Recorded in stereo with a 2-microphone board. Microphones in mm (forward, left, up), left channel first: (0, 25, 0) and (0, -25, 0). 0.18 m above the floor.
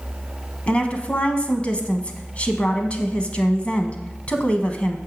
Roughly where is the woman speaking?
Left.